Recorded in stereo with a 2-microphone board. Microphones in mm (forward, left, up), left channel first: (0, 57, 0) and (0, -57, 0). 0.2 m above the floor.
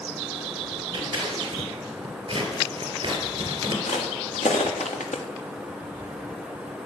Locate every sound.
0.9 s scissors: 45° right (ahead or behind), 3 m
3.9 s footsteps: 85° left, 3.5 m